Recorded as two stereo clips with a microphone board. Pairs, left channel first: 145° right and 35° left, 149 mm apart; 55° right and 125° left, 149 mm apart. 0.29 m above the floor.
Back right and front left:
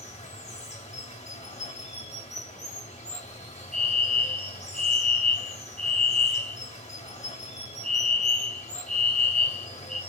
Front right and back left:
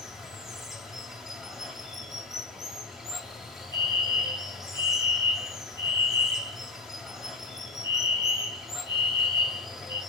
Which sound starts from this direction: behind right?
Running water, at 0.0 s.